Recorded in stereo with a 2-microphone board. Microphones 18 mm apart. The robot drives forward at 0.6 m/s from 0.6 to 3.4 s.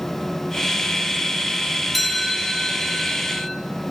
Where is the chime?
5° left (ahead or behind), 4 m.